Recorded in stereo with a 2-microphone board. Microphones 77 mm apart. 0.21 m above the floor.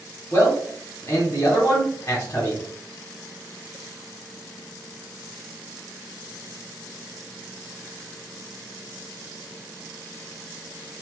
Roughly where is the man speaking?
Left.